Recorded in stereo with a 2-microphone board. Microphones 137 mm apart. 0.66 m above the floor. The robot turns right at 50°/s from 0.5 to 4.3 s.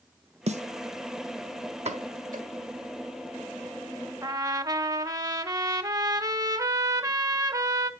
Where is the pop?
55° right (ahead or behind), 1.5 m; by 2.5 s 80° right, 1.5 m.